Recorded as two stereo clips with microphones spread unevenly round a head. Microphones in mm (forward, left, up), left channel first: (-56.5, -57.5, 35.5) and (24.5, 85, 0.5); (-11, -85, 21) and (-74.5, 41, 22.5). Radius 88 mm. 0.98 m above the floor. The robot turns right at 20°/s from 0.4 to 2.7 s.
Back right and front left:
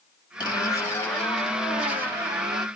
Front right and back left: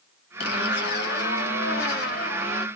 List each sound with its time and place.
0.4 s a zipper: 55° right, 2 m; by 2.7 s 10° right, 2 m